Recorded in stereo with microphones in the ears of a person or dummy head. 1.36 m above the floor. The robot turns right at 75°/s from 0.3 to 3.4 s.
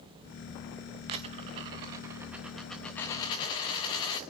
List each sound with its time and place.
1.1 s a dropped coin: 20° right (ahead or behind), 0.7 m; by 4.2 s 20° left (ahead or behind), 0.7 m